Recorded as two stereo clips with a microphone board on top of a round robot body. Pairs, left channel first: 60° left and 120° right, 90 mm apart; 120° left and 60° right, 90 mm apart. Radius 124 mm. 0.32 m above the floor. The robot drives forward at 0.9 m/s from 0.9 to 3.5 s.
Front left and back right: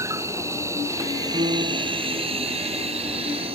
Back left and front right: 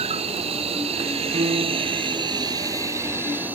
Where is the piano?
85° right; by 2.0 s 90° right.